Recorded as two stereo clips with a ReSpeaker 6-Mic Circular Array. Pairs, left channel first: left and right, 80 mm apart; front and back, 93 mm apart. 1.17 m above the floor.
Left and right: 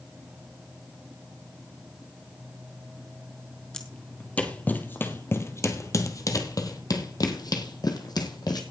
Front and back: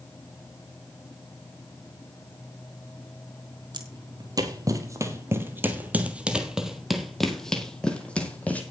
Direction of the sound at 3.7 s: 170° left.